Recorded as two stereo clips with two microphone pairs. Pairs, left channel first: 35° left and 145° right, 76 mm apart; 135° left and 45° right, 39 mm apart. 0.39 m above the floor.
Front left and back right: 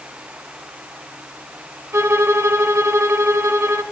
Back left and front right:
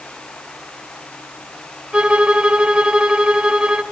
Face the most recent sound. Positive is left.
turn(degrees=-100)